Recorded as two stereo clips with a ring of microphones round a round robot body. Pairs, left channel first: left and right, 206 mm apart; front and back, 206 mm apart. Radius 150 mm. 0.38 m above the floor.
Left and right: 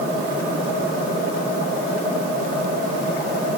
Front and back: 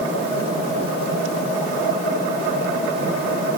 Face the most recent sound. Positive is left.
No sound to turn to.